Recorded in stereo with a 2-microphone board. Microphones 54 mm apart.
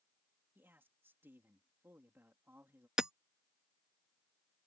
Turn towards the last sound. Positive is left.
turn(degrees=-15)  # may be behind; listen again after turning